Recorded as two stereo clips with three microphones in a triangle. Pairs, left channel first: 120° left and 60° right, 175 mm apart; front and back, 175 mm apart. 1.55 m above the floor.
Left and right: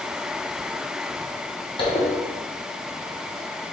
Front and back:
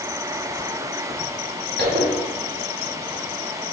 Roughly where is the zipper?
Behind.